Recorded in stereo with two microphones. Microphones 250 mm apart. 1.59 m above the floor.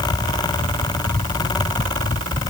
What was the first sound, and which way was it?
Only background noise.